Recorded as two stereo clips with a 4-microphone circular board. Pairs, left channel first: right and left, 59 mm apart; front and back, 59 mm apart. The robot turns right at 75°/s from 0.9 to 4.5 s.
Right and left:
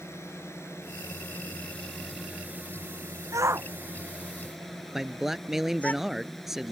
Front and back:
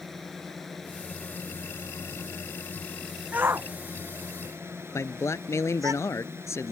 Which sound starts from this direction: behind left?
A shout, at 3.3 s.